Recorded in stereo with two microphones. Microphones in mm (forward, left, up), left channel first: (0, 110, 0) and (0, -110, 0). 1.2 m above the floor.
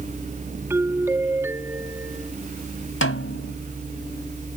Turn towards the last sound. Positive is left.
turn(degrees=70)  # may be behind; listen again after turning